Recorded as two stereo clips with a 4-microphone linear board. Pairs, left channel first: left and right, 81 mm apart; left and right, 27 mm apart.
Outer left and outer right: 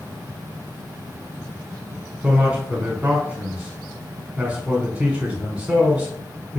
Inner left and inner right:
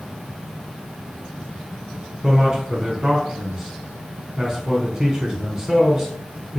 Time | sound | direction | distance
2.2 | a man speaking | 15° right (ahead or behind) | 1.1 m